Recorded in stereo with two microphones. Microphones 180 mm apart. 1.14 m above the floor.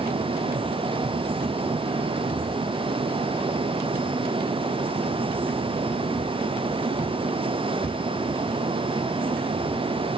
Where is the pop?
I don't hear a pop.